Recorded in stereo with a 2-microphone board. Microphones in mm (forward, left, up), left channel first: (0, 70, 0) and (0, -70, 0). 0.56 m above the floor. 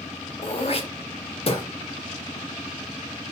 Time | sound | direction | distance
0.4 | throat clearing | 45° left (ahead or behind) | 0.5 m